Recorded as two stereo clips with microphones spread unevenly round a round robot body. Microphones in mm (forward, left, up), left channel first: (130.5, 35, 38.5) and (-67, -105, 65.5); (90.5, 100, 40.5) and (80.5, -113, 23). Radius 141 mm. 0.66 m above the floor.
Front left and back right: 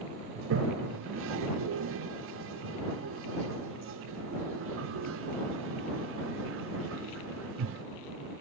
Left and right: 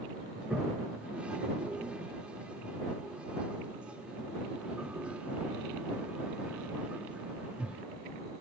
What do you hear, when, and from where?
0.3 s a toilet flushing: 175° right